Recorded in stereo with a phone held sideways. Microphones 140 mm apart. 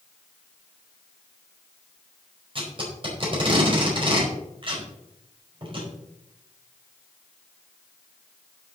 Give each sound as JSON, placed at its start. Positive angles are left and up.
{"t": 2.5, "sound": "tape being pulled", "side_deg": -40, "distance_m": 4.5}